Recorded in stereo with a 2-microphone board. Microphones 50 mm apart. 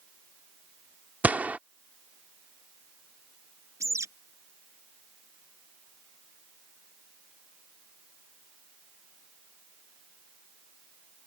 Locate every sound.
1.2 s a gunshot: 30° right (ahead or behind)
3.8 s a bird: 70° right (ahead or behind)